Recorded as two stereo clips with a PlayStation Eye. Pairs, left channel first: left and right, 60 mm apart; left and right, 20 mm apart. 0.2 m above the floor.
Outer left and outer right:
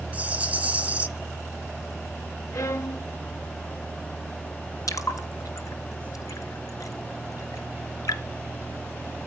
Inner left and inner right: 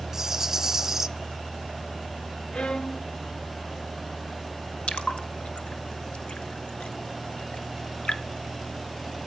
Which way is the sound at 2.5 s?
60° left (ahead or behind).